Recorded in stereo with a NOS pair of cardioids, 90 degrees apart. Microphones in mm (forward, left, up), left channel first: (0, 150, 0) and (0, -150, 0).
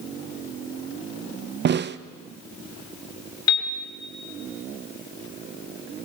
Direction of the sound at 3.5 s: 65° left.